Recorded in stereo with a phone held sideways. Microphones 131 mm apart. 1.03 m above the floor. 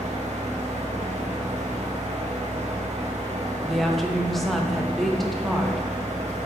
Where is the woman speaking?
Centre (ahead or behind), 1.0 m.